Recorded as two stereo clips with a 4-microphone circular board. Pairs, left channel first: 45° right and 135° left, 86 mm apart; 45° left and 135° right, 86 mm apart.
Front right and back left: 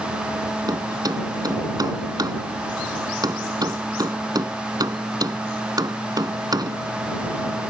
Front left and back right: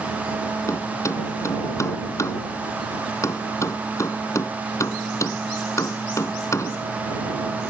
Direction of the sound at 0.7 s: 95° left.